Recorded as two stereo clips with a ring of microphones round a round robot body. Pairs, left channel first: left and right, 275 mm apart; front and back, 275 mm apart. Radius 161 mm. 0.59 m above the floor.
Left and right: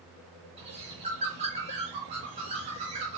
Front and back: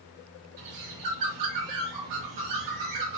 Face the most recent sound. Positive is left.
turn(degrees=-160)